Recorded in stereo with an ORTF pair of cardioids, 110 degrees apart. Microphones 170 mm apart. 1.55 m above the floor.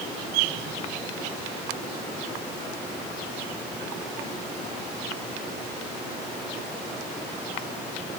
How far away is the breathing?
I don't hear breathing.